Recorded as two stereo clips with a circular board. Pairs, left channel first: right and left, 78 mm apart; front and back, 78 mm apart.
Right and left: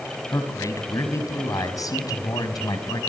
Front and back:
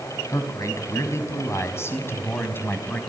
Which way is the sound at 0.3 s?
45° right.